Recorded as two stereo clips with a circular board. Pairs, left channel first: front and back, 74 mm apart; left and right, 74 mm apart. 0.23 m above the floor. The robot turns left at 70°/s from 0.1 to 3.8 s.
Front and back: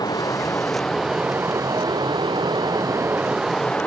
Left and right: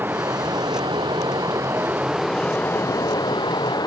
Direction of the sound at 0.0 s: 30° right.